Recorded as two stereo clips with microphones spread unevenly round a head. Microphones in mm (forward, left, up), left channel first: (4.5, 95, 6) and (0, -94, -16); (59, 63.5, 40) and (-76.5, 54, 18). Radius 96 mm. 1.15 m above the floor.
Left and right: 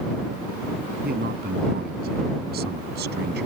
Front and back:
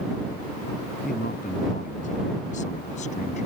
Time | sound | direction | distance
1.0 | a man speaking | 45° right | ?